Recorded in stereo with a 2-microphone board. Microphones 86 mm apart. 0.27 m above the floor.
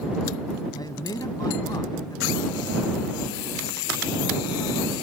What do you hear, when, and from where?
0.7 s a man speaking: 50° left (ahead or behind)